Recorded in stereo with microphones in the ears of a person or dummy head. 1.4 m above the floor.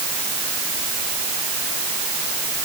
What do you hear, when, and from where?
Only background noise.